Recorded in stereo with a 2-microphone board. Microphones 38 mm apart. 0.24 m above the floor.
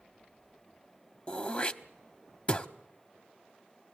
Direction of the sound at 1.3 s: 30° left (ahead or behind).